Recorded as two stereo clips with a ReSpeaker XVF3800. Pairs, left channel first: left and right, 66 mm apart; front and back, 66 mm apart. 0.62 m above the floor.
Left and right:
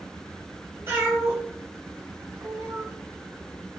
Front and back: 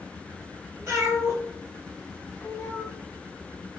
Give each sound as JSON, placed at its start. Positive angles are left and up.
{"t": 0.9, "sound": "a cat meowing", "azimuth_deg": -145, "distance_m": 1.3}